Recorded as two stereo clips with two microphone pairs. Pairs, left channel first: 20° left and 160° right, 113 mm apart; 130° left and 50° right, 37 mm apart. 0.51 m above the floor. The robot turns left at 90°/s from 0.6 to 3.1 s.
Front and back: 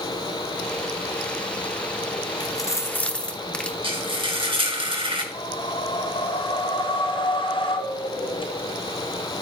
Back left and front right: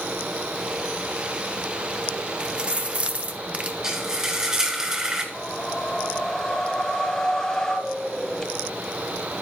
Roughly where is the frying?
Behind right.